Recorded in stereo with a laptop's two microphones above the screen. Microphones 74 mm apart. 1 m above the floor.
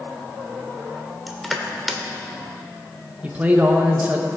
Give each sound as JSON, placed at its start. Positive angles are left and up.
{"t": 1.3, "sound": "crushing", "side_deg": 0, "distance_m": 1.5}
{"t": 3.2, "sound": "a man speaking", "side_deg": -20, "distance_m": 0.7}